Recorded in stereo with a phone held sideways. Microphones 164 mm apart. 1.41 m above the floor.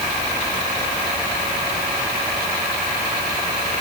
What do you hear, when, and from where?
Only background noise.